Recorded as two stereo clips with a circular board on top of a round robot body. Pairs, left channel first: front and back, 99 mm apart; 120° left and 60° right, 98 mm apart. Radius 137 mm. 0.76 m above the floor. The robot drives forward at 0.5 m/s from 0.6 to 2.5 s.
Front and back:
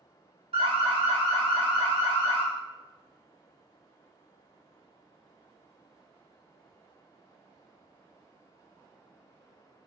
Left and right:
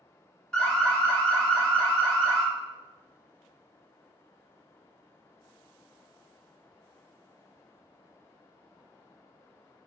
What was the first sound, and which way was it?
An alarm, 160° right.